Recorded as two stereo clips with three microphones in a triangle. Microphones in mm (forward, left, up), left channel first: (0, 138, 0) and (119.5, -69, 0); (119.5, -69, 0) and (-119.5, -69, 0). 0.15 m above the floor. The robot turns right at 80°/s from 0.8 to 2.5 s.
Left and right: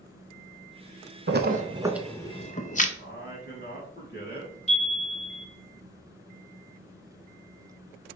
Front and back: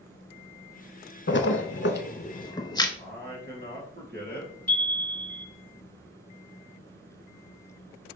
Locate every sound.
1.3 s a splash: 30° right, 0.5 m; by 2.9 s 65° left, 0.5 m
3.0 s a man speaking: 150° left, 1.9 m
4.7 s a chime: 75° left, 1.3 m